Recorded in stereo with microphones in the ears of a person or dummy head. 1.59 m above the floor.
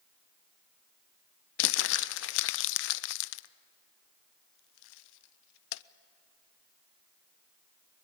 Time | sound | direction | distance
1.6 | crumpling | 75° left (ahead or behind) | 0.5 m